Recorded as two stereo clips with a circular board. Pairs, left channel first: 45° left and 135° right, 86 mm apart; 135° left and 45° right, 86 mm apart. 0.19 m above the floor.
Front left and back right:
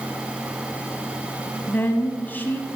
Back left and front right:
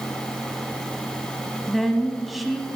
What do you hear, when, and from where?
1.7 s a woman speaking: 45° left, 1.1 m